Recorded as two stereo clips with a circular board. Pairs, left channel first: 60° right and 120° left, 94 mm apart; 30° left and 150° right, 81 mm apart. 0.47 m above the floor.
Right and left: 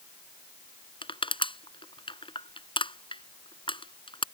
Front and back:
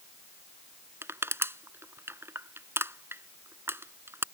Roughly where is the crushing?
Right.